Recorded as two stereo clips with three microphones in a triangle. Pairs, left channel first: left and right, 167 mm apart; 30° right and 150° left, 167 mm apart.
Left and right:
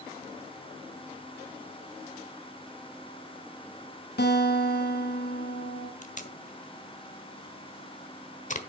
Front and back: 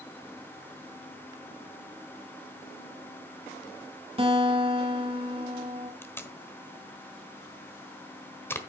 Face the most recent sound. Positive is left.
turn(degrees=45)